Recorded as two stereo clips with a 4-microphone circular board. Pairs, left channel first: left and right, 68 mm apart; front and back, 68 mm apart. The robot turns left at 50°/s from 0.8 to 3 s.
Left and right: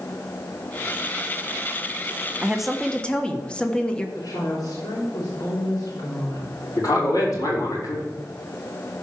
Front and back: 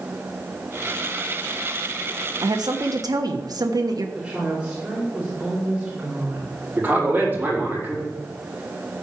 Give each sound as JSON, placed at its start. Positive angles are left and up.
{"t": 2.4, "sound": "a woman speaking", "azimuth_deg": -165, "distance_m": 1.2}
{"t": 4.2, "sound": "a woman speaking", "azimuth_deg": 105, "distance_m": 4.0}
{"t": 6.8, "sound": "a man speaking", "azimuth_deg": 120, "distance_m": 4.5}